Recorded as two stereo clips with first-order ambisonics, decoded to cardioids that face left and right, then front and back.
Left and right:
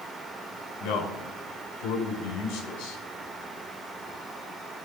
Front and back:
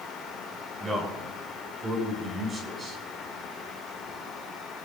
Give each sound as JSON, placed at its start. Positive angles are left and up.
{"t": 0.8, "sound": "a man speaking", "azimuth_deg": 100, "distance_m": 5.0}